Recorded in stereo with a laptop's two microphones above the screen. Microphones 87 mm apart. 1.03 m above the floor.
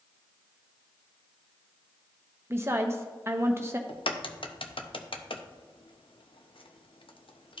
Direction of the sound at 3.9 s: 80° left.